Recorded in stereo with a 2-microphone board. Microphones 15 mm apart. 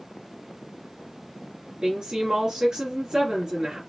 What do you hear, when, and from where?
1.8 s a woman speaking: 50° right (ahead or behind), 2.5 m